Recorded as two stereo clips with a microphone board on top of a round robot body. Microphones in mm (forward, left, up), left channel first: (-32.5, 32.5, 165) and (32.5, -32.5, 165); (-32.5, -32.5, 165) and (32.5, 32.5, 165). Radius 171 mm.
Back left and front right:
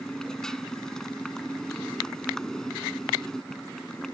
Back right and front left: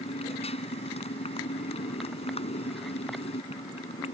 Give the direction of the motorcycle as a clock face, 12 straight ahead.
5 o'clock.